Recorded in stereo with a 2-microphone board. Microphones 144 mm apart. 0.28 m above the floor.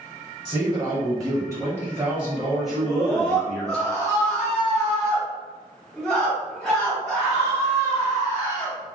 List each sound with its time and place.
0.5 s a man speaking: 30° right (ahead or behind), 1.3 m; by 3.8 s 10° left (ahead or behind), 1.7 m
2.8 s a scream: 5° left (ahead or behind), 1.9 m